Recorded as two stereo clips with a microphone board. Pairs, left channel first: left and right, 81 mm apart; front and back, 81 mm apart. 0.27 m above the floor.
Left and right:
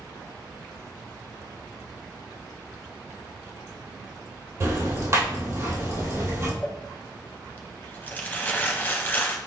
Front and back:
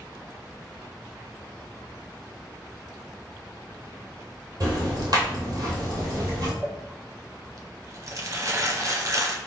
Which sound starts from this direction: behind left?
Crumpling, at 6.6 s.